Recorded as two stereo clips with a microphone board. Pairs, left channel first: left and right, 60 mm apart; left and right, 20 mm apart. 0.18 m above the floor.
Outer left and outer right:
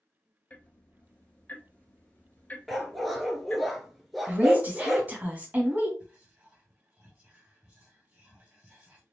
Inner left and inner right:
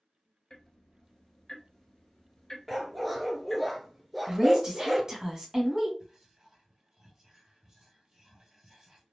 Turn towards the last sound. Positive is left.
turn(degrees=-20)  # may be behind; listen again after turning